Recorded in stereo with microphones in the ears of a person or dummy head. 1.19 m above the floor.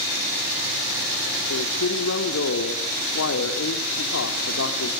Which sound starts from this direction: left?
A man speaking, at 1.5 s.